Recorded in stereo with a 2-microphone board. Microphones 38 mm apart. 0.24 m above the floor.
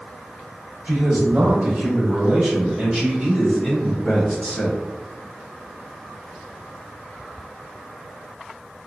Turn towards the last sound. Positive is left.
turn(degrees=30)  # may be behind; listen again after turning